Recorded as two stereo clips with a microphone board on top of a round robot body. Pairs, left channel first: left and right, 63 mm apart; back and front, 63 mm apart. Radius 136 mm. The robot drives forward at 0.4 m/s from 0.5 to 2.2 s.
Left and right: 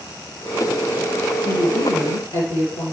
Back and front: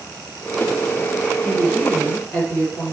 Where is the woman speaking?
120° left, 4 m.